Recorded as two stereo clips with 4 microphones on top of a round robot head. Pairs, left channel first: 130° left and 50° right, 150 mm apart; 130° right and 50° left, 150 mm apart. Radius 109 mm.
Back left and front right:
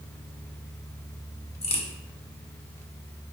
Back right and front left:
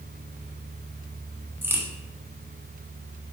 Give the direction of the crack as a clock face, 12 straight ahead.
8 o'clock.